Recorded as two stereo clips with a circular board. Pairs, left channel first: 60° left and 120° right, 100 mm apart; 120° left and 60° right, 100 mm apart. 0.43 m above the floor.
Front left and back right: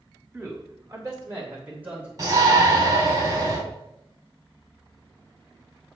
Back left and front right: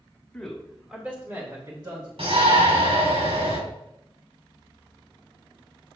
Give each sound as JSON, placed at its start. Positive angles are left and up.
{"t": 0.3, "sound": "a man speaking", "azimuth_deg": -160, "distance_m": 1.6}
{"t": 2.2, "sound": "a shout", "azimuth_deg": -70, "distance_m": 3.0}